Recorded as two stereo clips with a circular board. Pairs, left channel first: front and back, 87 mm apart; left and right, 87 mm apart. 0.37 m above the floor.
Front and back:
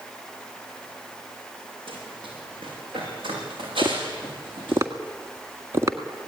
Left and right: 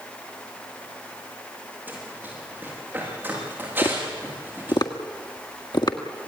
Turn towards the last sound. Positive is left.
turn(degrees=125)